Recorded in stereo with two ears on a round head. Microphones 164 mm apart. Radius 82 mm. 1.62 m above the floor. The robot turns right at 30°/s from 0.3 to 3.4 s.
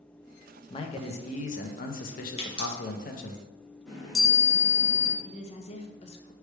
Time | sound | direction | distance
0.7 | a man speaking | 35° left | 0.6 m
2.4 | a pop | 35° left (ahead or behind) | 1.3 m
3.9 | a chime | centre (ahead or behind) | 1.7 m
5.2 | a woman speaking | 35° left (ahead or behind) | 0.7 m